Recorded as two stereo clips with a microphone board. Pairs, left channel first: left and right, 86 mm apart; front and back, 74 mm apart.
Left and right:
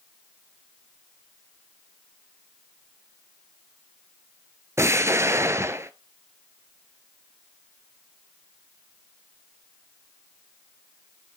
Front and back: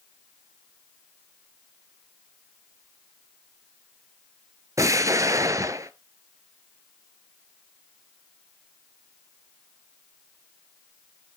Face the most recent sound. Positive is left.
turn(degrees=-145)